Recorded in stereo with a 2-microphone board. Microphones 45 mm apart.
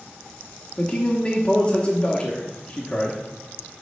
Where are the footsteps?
I don't hear footsteps.